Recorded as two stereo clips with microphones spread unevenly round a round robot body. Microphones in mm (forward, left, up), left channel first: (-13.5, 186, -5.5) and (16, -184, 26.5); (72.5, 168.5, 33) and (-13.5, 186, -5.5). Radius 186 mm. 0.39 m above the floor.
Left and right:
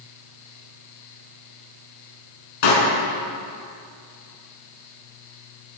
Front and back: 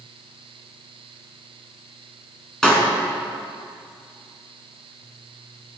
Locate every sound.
2.6 s a pop: 75° left, 5.5 m